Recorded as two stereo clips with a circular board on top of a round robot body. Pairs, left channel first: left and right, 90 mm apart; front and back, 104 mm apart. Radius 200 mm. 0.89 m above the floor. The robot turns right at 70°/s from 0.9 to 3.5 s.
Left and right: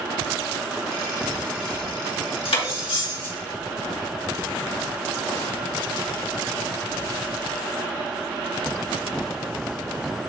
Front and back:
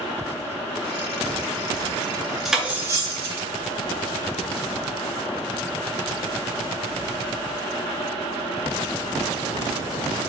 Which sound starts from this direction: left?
Cutlery clinking, at 2.5 s.